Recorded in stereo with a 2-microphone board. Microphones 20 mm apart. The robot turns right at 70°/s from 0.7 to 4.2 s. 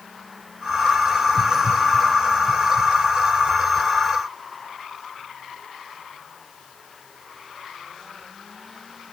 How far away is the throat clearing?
No throat clearing in this recording.